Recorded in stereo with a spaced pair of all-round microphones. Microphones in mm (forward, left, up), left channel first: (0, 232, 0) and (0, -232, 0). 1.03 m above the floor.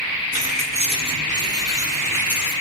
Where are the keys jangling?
20° right (ahead or behind), 7 m; by 2.5 s 5° right (ahead or behind), 8 m.